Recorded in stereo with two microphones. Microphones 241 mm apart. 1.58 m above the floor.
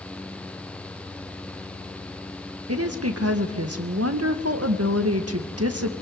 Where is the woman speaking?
80° right, 2 m.